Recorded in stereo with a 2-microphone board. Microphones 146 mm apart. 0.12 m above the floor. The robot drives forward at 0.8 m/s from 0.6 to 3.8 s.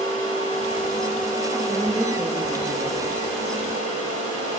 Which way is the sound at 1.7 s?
20° right (ahead or behind).